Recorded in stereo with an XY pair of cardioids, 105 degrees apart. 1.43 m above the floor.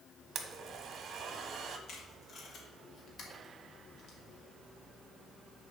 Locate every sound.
0.3 s a blender: 55° right, 1.3 m
1.9 s tape being pulled: 55° left, 3 m